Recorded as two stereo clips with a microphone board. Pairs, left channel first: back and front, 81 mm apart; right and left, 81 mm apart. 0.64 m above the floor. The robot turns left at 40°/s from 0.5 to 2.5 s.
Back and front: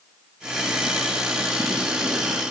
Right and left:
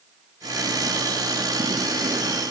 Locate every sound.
Only background noise.